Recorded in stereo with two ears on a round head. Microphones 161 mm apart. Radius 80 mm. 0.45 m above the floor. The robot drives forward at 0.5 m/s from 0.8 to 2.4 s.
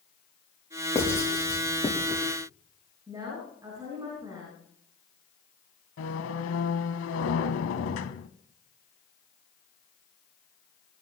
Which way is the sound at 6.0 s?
85° left.